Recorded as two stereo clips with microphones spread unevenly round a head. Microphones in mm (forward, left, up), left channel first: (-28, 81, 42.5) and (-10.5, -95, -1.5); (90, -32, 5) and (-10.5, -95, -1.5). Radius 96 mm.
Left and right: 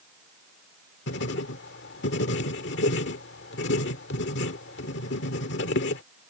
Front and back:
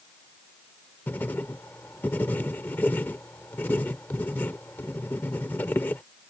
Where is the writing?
110° left.